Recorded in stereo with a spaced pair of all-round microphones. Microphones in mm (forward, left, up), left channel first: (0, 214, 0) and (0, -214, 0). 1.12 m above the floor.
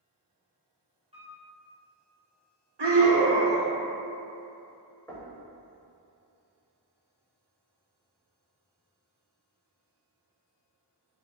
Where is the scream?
70° right (ahead or behind), 0.7 m.